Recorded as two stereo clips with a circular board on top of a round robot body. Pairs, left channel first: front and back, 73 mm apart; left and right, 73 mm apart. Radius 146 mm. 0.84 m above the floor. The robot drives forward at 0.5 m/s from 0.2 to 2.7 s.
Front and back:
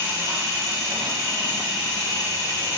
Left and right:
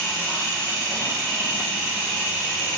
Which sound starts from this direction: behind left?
An engine running, at 0.0 s.